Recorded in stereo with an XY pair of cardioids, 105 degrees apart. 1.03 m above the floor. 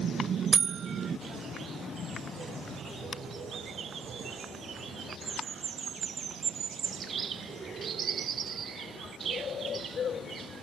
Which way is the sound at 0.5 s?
40° right.